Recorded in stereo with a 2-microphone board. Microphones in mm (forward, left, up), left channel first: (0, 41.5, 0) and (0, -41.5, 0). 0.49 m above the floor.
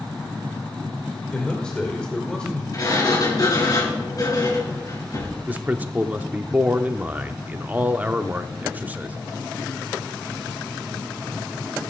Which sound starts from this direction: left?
A sliding door, at 2.7 s.